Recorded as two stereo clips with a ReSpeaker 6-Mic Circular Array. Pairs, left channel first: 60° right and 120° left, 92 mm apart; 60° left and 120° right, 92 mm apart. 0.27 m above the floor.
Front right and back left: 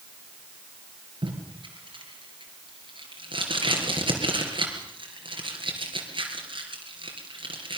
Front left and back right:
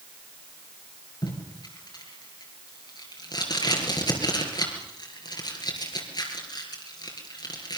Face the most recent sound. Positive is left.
turn(degrees=95)